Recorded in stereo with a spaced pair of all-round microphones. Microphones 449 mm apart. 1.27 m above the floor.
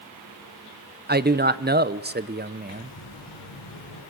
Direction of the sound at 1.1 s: 20° right (ahead or behind).